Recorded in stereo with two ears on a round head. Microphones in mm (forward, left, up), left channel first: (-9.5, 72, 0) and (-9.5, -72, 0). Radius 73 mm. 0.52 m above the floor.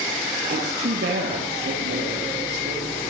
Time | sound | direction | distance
0.5 | a woman speaking | 70° right (ahead or behind) | 10 m